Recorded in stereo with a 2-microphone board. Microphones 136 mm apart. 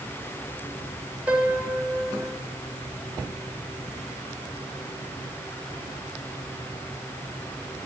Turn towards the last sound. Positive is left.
turn(degrees=-10)  # may be behind; listen again after turning